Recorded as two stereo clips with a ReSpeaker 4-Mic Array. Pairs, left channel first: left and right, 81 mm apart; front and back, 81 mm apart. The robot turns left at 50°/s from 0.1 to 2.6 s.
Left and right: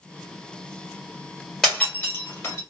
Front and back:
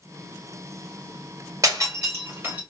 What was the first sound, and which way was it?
Breaking glass, 175° left.